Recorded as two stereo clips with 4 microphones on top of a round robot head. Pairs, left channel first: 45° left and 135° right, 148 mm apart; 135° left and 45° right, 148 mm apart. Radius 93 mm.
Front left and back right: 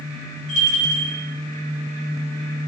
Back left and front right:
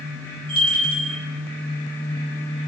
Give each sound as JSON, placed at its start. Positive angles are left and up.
{"t": 0.5, "sound": "a bell", "azimuth_deg": 10, "distance_m": 3.0}